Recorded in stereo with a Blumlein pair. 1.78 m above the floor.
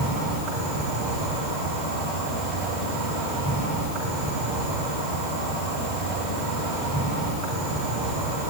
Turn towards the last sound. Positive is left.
turn(degrees=-50)